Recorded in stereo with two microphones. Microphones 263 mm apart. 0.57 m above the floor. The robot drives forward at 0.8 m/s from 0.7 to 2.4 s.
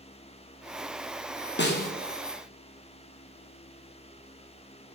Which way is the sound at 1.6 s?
45° left (ahead or behind).